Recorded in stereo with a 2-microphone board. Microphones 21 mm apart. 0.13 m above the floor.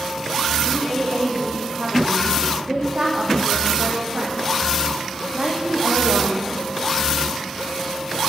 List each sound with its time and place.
0.7 s a woman speaking: 45° right (ahead or behind), 8 m; by 6.5 s 70° right (ahead or behind), 6 m